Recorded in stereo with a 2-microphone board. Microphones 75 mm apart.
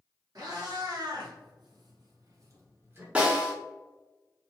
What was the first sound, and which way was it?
A cat meowing, 60° right (ahead or behind).